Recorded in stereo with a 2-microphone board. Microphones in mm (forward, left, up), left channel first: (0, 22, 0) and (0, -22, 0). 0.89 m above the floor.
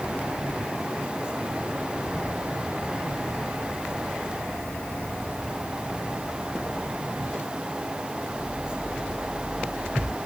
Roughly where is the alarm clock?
I don't hear an alarm clock.